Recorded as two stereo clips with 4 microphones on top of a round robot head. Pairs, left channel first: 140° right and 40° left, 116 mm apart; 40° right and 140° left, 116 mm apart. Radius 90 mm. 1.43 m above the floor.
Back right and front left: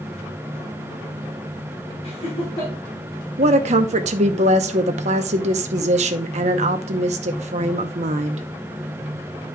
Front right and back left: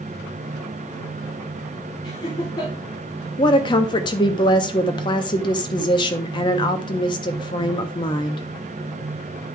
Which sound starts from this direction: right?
Laughter, at 2.0 s.